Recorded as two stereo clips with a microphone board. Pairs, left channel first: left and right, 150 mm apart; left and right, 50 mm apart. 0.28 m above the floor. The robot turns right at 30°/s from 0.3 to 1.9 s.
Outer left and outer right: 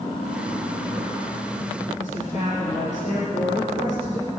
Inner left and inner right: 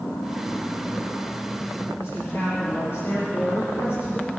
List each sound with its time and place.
2.0 s a woman speaking: 55° left (ahead or behind), 5 m